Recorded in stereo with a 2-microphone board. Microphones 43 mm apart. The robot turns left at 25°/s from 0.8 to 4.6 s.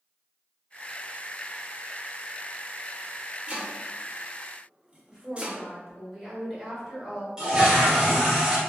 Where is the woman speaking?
5° right (ahead or behind), 1.8 m.